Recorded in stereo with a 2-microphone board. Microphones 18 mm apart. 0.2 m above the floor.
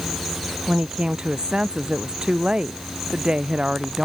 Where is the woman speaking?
60° right (ahead or behind).